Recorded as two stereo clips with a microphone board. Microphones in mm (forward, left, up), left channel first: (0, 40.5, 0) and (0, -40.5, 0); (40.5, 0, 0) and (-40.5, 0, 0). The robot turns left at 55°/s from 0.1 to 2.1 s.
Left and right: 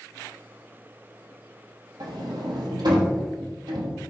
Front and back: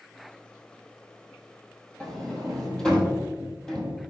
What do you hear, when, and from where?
2.0 s a sliding door: 70° right, 2 m; by 4.0 s 80° right, 2 m